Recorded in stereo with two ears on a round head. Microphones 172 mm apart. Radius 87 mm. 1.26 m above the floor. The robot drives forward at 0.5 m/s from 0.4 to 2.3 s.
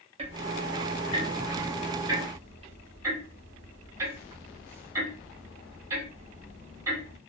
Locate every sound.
0.2 s ticking: 35° right (ahead or behind), 0.5 m; by 7.2 s 15° right (ahead or behind), 1.0 m